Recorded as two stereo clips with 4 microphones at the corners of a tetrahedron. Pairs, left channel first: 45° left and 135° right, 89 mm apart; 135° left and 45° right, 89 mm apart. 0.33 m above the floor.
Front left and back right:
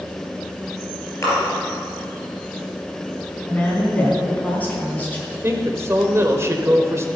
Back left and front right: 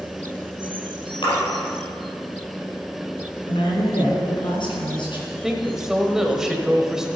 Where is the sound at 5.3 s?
125° right, 1.2 m.